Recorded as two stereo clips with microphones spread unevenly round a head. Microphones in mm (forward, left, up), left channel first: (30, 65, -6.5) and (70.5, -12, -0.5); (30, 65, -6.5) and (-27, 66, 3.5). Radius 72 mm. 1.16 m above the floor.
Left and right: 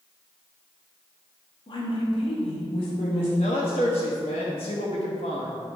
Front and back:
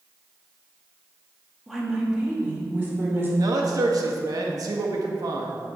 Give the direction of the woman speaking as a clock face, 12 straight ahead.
9 o'clock.